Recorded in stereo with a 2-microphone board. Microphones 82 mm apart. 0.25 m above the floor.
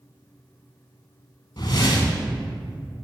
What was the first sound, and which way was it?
A whoosh, 60° left (ahead or behind).